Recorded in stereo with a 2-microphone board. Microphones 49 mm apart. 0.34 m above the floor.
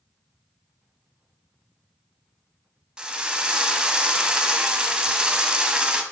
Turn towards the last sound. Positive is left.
turn(degrees=-15)  # may be behind; listen again after turning